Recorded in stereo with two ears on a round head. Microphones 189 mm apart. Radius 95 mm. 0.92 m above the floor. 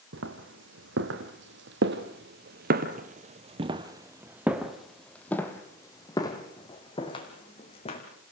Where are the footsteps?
60° right (ahead or behind), 2.5 m; by 8.0 s 30° left (ahead or behind), 3 m.